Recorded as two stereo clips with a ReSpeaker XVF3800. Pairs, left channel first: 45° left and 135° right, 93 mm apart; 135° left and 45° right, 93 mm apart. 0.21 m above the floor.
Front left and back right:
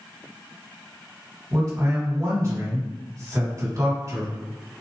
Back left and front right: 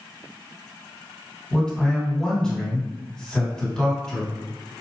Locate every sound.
1.5 s a man speaking: 150° right, 1.9 m